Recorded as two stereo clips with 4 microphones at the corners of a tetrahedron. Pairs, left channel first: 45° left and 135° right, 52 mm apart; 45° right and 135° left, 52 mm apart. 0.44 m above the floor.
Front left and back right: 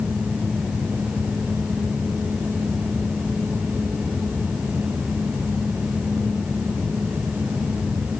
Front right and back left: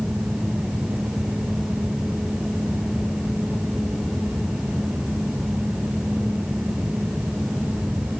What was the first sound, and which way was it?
Only background noise.